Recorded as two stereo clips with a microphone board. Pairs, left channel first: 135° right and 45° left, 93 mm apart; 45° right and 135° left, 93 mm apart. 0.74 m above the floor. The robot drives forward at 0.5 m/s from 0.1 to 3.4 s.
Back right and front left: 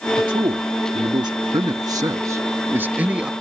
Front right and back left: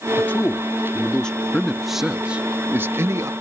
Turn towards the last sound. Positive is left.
turn(degrees=120)